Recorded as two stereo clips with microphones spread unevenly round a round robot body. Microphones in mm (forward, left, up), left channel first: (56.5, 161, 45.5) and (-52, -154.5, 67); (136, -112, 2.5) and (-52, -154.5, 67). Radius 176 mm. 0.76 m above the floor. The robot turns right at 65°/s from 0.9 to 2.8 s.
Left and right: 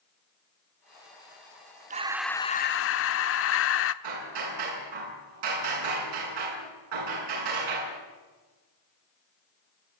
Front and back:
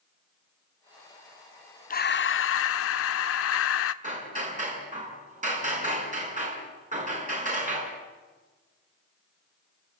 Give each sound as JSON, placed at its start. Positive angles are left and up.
{"t": 1.9, "sound": "breathing", "azimuth_deg": -40, "distance_m": 0.8}
{"t": 4.0, "sound": "hammering", "azimuth_deg": -115, "distance_m": 7.5}